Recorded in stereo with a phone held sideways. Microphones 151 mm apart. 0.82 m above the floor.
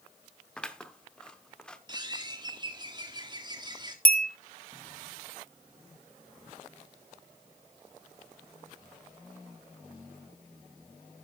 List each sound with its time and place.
0.6 s scissors: 5° left (ahead or behind), 1.0 m
1.9 s a bird: 30° right (ahead or behind), 1.6 m
4.0 s a bell: 75° left (ahead or behind), 1.2 m